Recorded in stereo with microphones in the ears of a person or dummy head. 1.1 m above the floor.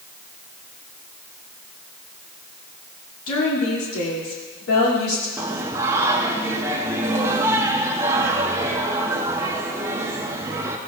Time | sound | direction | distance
3.3 | a woman speaking | 90° left | 2.5 m
5.4 | singing | 15° right (ahead or behind) | 0.7 m